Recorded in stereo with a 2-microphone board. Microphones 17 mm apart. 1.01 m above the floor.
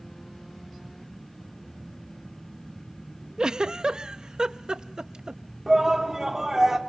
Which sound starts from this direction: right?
A giggle, at 3.4 s.